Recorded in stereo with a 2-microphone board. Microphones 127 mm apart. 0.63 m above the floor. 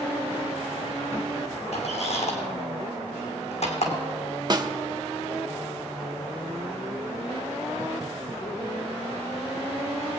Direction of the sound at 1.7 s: 65° left (ahead or behind).